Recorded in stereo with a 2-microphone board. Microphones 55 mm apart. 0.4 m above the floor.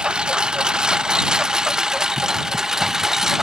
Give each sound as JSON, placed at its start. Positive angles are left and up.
{"t": 0.0, "sound": "a lawn mower", "side_deg": -15}